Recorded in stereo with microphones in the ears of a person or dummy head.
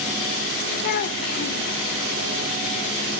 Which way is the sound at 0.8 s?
45° left (ahead or behind).